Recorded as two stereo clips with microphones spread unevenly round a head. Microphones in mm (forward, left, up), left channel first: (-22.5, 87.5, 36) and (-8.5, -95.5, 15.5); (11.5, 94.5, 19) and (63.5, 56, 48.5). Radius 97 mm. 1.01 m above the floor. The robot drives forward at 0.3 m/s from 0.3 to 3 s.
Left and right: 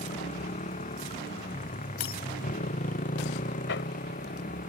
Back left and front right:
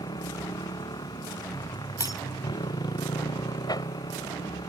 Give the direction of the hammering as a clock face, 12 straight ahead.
8 o'clock.